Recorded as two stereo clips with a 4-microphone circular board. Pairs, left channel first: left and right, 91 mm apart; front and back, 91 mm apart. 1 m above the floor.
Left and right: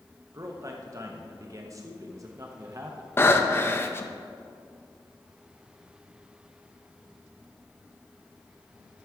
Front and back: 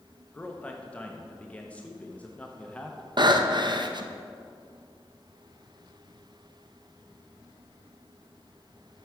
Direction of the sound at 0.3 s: 70° right.